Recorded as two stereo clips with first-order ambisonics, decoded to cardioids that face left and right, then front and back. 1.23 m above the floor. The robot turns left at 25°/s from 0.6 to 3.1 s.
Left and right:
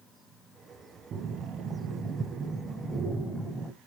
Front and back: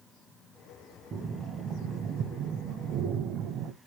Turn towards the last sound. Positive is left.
turn(degrees=180)